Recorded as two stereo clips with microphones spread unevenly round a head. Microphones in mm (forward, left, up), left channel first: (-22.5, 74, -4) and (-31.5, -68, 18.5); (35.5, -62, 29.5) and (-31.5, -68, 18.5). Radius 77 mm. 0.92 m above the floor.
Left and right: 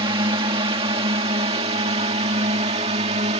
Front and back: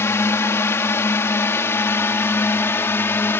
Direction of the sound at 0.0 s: 35° right.